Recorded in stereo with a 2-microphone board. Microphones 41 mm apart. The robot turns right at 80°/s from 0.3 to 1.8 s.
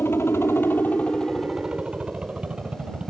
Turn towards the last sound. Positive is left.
turn(degrees=-150)